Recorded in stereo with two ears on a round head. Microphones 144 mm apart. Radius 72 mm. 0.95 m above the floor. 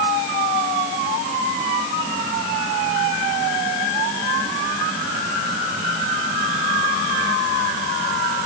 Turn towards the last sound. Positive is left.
No sound to turn to.